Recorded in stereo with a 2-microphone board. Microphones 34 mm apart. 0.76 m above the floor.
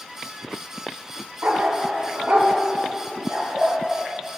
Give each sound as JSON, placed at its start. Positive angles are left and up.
{"t": 1.4, "sound": "a dog barking", "side_deg": -70, "distance_m": 1.5}